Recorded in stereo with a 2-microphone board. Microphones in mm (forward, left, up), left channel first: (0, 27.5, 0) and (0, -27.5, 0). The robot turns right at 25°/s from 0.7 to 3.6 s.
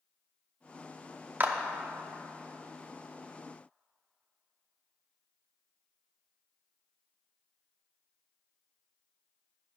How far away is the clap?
About 0.7 m.